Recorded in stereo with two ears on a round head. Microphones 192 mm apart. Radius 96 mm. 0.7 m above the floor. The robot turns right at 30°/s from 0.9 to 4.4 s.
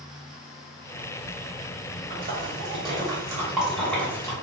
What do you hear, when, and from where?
2.1 s a splash: 45° right (ahead or behind), 0.9 m; by 4.3 s 15° left (ahead or behind), 0.9 m